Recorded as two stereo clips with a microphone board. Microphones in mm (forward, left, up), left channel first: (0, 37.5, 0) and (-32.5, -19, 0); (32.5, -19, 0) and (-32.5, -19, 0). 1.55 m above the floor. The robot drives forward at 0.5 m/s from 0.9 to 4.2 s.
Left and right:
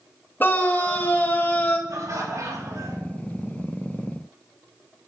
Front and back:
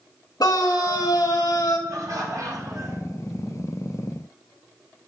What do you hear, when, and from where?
0.4 s a scream: 5° left, 2.5 m
1.9 s laughter: 150° right, 3.5 m; by 3.0 s 155° right, 4 m